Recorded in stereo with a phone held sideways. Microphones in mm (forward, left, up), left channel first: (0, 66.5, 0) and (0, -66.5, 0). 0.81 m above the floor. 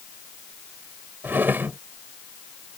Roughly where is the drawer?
Centre.